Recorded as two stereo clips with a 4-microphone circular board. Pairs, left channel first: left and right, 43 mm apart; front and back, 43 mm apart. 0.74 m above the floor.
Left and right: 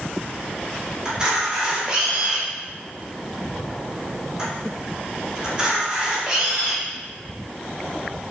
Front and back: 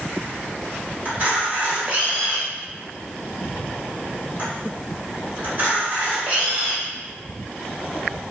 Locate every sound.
1.1 s a camera shutter: 155° right, 1.4 m